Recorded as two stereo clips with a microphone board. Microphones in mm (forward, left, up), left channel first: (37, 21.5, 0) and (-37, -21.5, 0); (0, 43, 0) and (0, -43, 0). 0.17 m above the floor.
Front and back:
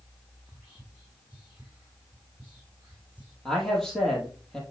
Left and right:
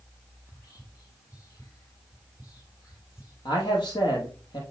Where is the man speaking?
115° left, 4.5 m.